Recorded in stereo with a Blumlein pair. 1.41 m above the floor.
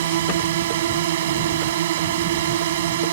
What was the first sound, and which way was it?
A drone, 60° right.